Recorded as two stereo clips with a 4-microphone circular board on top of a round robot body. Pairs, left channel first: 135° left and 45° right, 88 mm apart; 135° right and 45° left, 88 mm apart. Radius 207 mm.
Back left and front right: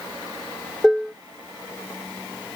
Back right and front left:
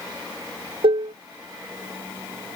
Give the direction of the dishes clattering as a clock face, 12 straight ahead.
11 o'clock.